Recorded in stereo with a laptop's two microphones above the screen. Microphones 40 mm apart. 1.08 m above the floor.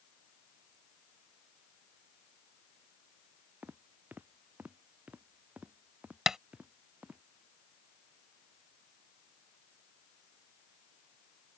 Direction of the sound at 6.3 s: 15° right (ahead or behind).